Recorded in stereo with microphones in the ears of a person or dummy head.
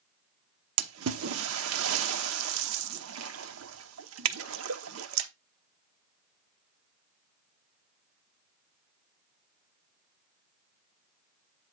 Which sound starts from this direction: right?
A splash, at 0.8 s.